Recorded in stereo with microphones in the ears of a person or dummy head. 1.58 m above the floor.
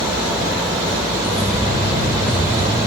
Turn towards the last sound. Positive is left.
turn(degrees=-20)  # may be behind; listen again after turning